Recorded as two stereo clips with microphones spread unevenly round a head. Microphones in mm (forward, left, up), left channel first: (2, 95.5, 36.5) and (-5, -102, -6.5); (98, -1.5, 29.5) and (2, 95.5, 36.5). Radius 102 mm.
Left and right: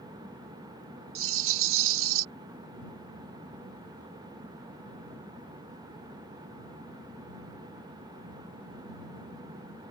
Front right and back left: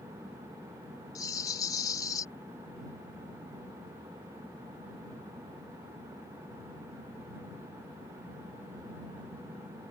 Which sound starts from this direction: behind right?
A rattle, at 1.1 s.